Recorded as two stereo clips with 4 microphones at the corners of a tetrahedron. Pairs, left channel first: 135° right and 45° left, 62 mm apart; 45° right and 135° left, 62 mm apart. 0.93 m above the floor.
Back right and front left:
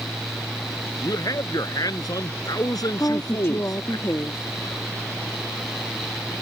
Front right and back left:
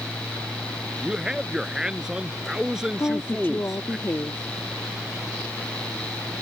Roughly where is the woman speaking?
Right.